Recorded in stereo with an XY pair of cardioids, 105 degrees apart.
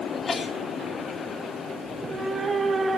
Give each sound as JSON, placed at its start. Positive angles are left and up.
{"t": 0.1, "sound": "a sneeze", "azimuth_deg": 35, "distance_m": 4.0}
{"t": 1.8, "sound": "a cat meowing", "azimuth_deg": -25, "distance_m": 6.0}